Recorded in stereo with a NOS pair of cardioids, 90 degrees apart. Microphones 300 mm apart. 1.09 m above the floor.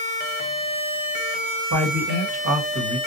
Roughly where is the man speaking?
Ahead right.